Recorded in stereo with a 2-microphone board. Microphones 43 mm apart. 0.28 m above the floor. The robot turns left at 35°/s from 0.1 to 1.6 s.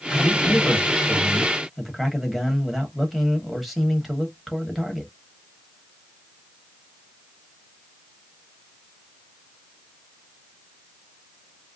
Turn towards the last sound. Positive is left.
turn(degrees=0)